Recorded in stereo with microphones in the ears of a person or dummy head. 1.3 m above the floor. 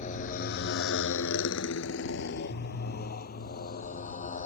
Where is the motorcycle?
40° left (ahead or behind); by 4.5 s 45° left (ahead or behind).